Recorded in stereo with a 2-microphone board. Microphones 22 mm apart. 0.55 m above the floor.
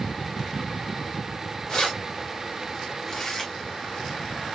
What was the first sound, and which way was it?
Keys jangling, 40° left (ahead or behind).